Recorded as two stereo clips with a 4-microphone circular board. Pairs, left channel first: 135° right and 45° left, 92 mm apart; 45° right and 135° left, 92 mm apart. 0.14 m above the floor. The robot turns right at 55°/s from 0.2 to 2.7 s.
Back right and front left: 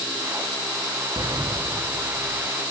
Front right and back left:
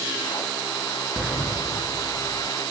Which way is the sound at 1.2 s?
65° left.